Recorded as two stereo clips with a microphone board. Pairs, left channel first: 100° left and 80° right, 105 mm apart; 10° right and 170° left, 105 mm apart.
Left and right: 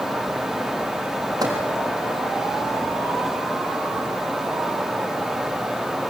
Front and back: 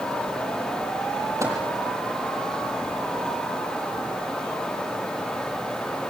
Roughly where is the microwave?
Behind right.